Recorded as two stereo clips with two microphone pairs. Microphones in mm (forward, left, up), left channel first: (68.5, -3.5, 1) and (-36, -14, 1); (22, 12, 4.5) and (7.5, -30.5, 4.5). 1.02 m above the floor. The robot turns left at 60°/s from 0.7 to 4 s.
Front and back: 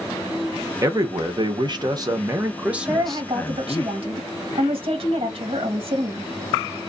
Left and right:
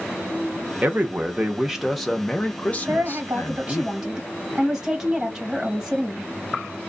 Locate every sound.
0.8 s a man speaking: 130° right, 0.7 m; by 3.9 s 45° left, 0.7 m
2.9 s a woman speaking: 125° right, 1.6 m; by 6.3 s 165° left, 1.6 m